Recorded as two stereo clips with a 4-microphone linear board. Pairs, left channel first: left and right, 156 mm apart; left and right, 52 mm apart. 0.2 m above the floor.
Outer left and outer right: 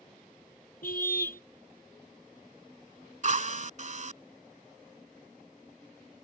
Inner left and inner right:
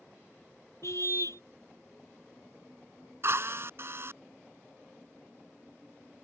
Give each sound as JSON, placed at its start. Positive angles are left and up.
{"t": 0.8, "sound": "a car horn", "side_deg": 70}
{"t": 3.2, "sound": "a drill", "side_deg": -50}